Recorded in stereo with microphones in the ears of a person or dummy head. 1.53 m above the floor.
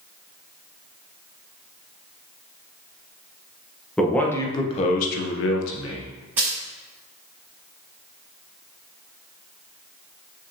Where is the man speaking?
5° left (ahead or behind), 1.5 m; by 6.1 s 80° left, 1.4 m.